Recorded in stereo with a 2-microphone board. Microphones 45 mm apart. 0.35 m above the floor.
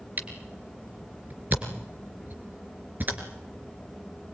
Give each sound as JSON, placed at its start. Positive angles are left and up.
{"t": 0.2, "sound": "a camera shutter", "side_deg": -40, "distance_m": 3.0}